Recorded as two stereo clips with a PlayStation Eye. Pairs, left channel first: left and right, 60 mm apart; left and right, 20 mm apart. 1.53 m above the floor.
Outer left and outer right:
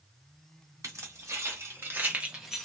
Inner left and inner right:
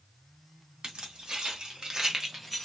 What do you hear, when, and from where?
0.8 s keys jangling: 65° right (ahead or behind), 1.5 m; by 2.6 s 5° left (ahead or behind), 0.7 m